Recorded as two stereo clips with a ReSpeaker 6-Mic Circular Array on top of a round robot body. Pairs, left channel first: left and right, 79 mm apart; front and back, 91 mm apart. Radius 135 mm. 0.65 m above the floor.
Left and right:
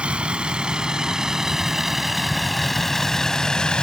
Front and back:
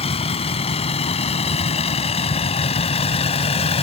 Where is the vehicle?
10° right; by 3.8 s 10° left.